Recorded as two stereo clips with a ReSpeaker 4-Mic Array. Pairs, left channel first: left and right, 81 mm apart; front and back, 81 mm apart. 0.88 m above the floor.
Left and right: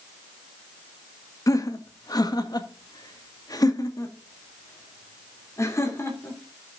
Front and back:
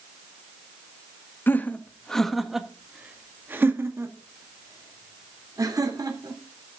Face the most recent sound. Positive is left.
turn(degrees=145)